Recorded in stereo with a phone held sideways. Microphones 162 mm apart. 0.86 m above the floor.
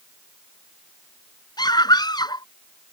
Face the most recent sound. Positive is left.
turn(degrees=25)  # may be behind; listen again after turning